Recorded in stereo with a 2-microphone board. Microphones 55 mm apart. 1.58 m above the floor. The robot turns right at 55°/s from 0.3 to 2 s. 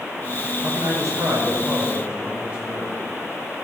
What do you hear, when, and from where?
0.6 s a man speaking: 95° right, 6 m; by 3.0 s 20° right, 6 m